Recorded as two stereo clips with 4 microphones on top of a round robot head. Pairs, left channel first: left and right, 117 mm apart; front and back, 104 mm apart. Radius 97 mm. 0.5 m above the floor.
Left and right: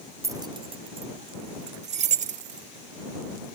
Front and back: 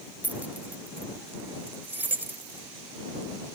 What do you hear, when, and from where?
0.2 s keys jangling: 120° right; by 2.7 s 105° right